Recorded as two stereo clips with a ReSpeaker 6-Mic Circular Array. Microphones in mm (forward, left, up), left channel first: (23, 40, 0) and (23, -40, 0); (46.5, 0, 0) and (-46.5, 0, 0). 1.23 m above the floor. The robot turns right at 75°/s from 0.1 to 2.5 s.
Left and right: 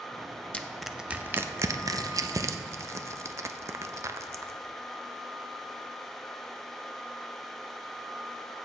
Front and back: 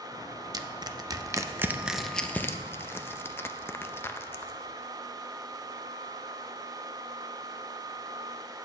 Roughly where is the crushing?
Behind.